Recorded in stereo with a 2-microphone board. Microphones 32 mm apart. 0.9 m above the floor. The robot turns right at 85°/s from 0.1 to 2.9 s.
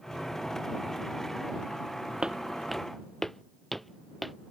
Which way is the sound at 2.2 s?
35° right (ahead or behind).